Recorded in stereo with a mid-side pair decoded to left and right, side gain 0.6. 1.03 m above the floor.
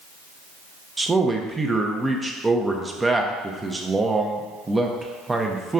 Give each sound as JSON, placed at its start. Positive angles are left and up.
{"t": 1.0, "sound": "a man speaking", "azimuth_deg": -15, "distance_m": 0.7}